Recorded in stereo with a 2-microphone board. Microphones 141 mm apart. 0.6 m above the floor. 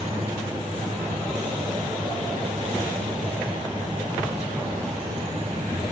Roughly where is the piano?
I don't hear a piano.